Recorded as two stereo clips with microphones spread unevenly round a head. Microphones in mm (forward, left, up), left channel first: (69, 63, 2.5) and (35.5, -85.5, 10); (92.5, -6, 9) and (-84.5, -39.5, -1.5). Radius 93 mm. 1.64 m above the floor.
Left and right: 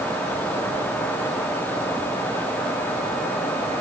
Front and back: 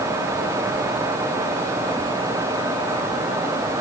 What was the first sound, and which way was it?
Only background noise.